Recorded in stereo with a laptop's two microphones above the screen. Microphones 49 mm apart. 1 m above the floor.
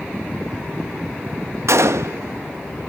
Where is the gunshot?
70° right (ahead or behind), 0.5 m.